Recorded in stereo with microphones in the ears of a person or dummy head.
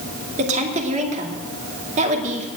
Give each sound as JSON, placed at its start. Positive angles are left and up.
{"t": 0.4, "sound": "a woman speaking", "side_deg": -35, "distance_m": 2.5}